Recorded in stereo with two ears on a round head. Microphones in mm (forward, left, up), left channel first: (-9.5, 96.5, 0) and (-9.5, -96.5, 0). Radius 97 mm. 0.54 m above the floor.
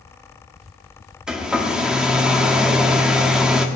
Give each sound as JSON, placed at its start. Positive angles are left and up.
{"t": 1.3, "sound": "a hair dryer", "side_deg": -5, "distance_m": 1.2}